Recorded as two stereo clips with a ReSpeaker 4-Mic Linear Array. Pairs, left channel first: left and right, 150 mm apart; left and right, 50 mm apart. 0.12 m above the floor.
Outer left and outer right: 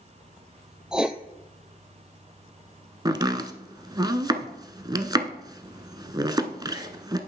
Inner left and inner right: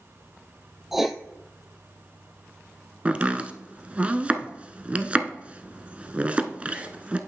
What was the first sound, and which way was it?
Writing, 5° right (ahead or behind).